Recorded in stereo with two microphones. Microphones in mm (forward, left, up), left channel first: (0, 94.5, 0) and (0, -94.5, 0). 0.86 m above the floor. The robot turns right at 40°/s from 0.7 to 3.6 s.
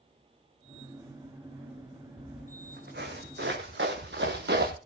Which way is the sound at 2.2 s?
40° right (ahead or behind).